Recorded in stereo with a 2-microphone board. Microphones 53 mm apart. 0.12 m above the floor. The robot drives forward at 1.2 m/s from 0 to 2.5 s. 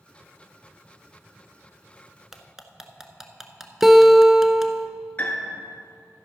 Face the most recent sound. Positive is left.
turn(degrees=35)  # may be behind; listen again after turning